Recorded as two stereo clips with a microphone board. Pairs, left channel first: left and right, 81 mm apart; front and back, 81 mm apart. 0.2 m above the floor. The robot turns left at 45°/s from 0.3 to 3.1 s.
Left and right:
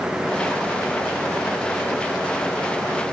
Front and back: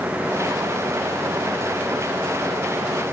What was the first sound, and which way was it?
Only background noise.